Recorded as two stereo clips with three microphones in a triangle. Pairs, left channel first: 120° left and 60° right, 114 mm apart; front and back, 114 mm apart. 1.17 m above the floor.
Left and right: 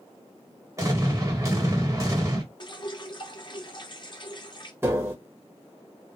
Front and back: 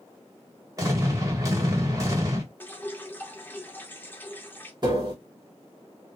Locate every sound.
0.8 s an explosion: 120° right, 1.8 m
2.6 s dripping: 70° left, 0.8 m
4.8 s tapping: 130° right, 1.5 m